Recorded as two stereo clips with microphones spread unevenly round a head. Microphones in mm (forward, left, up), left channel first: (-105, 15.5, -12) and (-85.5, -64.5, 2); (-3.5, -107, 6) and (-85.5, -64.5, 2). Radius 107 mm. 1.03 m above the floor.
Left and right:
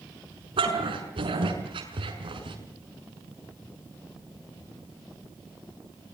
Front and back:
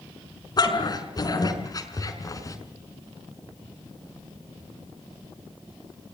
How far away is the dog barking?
About 6 m.